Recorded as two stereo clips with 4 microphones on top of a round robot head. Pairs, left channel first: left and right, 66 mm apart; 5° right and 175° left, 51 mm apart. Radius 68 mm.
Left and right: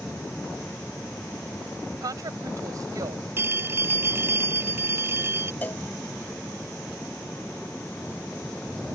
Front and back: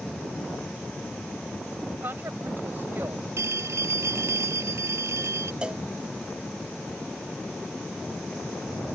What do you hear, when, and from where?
2.0 s a woman speaking: 125° right
3.4 s a phone ringing: 145° right
5.6 s a cowbell: 125° left